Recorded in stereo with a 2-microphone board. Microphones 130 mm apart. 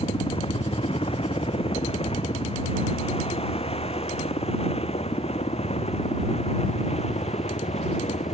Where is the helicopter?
45° left (ahead or behind); by 8.3 s 55° left (ahead or behind).